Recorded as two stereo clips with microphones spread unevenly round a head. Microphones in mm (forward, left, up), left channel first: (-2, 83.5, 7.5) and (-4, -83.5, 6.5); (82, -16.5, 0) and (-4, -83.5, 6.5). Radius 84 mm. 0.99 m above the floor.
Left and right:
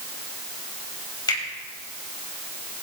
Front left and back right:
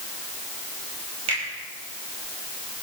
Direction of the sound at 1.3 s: 155° left.